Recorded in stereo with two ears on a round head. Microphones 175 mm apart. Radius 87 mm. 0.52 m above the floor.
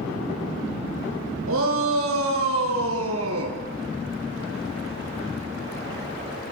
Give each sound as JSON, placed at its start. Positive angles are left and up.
{"t": 1.5, "sound": "a shout", "side_deg": -80, "distance_m": 7.0}